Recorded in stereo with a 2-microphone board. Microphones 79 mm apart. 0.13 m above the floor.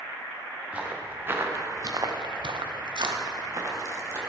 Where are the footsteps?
15° right (ahead or behind), 2.5 m; by 4.2 s 35° right (ahead or behind), 3 m.